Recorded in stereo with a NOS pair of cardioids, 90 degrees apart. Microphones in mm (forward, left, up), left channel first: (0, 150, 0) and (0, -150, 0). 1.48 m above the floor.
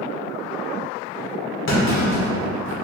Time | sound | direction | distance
1.7 | a clunk | 45° left | 1.4 m